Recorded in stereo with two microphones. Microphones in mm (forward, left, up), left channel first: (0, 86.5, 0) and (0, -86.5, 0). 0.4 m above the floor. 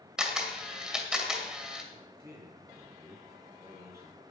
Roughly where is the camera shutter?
Centre.